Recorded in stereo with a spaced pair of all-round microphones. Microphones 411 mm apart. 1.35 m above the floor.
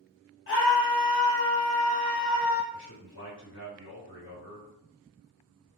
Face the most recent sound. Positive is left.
turn(degrees=70)  # may be behind; listen again after turning